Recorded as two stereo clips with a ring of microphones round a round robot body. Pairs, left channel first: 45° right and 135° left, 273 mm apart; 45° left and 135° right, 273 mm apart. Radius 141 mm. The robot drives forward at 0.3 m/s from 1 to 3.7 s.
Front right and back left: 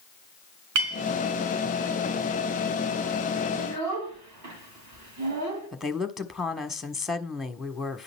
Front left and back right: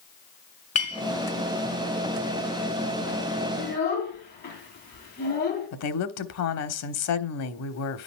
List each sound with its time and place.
0.8 s a clink: 110° left, 3.5 m
3.6 s a child speaking: 100° left, 2.5 m
5.7 s a woman speaking: 45° left, 1.4 m